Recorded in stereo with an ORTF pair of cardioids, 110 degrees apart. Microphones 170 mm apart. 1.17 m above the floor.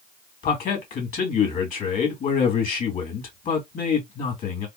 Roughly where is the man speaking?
Ahead left.